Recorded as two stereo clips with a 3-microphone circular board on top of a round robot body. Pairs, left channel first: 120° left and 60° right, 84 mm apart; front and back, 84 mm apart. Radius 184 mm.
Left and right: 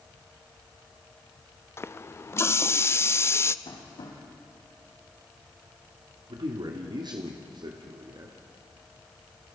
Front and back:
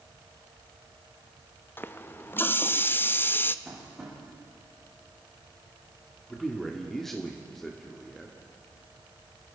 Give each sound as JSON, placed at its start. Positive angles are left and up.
{"t": 1.8, "sound": "a running tap", "azimuth_deg": 60, "distance_m": 0.7}
{"t": 3.6, "sound": "tapping", "azimuth_deg": 95, "distance_m": 8.0}
{"t": 6.3, "sound": "a man speaking", "azimuth_deg": -85, "distance_m": 2.5}